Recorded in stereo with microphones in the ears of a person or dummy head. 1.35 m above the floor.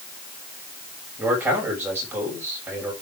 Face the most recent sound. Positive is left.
turn(degrees=-15)  # may be behind; listen again after turning